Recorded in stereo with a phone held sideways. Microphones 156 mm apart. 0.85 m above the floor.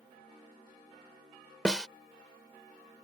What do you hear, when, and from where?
1.6 s a snare drum: 5° left (ahead or behind)